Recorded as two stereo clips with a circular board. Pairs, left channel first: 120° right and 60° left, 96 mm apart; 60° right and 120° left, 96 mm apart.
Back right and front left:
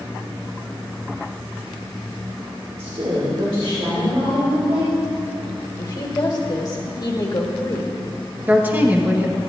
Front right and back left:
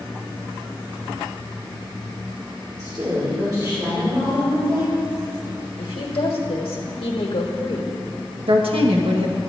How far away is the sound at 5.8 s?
About 1.4 m.